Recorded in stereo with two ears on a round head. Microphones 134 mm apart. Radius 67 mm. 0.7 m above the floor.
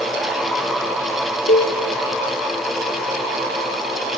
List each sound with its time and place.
1.5 s a cowbell: 65° left (ahead or behind), 2.5 m